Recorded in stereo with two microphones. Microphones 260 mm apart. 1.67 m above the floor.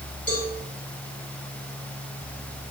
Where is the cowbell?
60° left (ahead or behind), 6.5 m.